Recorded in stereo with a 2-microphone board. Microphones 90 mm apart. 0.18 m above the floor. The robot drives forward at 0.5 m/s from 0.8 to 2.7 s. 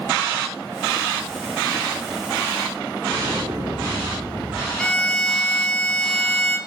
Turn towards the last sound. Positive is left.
turn(degrees=10)  # may be behind; listen again after turning